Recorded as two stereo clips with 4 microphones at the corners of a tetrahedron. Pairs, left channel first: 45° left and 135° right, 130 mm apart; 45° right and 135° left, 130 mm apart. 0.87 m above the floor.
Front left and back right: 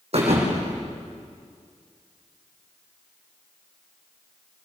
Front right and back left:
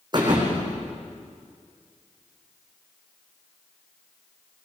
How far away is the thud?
About 7.5 m.